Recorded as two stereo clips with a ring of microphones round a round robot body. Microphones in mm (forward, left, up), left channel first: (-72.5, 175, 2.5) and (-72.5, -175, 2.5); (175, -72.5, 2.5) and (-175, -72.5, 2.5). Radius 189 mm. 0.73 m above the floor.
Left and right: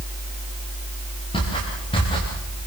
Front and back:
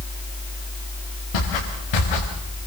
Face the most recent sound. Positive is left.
turn(degrees=10)